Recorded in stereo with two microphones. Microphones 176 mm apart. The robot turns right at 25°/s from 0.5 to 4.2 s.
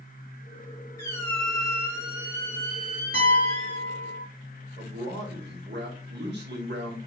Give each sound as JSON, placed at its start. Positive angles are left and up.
{"t": 1.0, "sound": "a squeak", "azimuth_deg": 160, "distance_m": 1.7}
{"t": 3.1, "sound": "a piano", "side_deg": -60, "distance_m": 2.0}
{"t": 4.8, "sound": "a man speaking", "side_deg": -75, "distance_m": 1.7}